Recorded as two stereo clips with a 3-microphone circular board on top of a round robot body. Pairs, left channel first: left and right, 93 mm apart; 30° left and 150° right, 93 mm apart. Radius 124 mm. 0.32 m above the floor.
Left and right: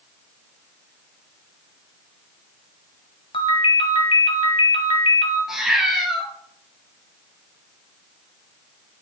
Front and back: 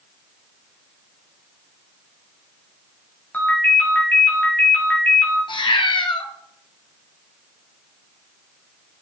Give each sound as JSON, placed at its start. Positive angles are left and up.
{"t": 3.3, "sound": "a ringtone", "azimuth_deg": 100, "distance_m": 2.0}
{"t": 5.5, "sound": "a cat meowing", "azimuth_deg": -5, "distance_m": 1.5}